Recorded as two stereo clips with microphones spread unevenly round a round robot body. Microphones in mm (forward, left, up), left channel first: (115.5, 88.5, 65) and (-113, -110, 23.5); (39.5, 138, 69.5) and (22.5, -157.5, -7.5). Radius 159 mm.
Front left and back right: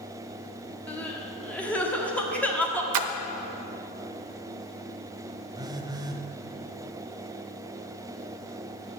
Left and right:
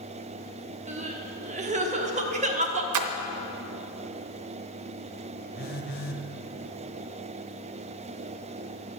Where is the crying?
50° right, 1.3 m.